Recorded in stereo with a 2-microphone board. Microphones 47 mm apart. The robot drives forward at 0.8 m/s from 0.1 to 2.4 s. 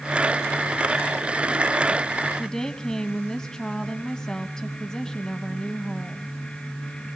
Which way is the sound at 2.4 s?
10° left (ahead or behind).